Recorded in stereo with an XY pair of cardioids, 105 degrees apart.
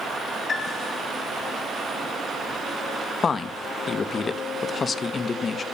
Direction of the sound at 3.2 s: 35° left.